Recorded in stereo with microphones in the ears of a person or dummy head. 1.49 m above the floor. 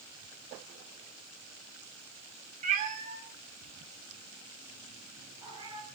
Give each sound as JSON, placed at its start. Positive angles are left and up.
{"t": 2.6, "sound": "a cat meowing", "side_deg": -45, "distance_m": 1.4}